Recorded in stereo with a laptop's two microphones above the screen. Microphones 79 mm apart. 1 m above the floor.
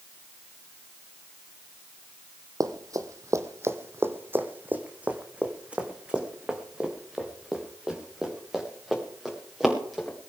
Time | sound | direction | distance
2.6 | running footsteps | 50° right (ahead or behind) | 1.5 m